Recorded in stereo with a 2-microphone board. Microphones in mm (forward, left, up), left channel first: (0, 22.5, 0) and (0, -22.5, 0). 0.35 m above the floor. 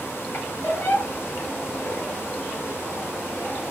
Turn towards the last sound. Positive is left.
turn(degrees=45)  # may be behind; listen again after turning